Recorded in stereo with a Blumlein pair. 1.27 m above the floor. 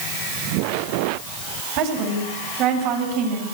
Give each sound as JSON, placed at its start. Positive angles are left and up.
{"t": 1.8, "sound": "a woman speaking", "azimuth_deg": -40, "distance_m": 8.5}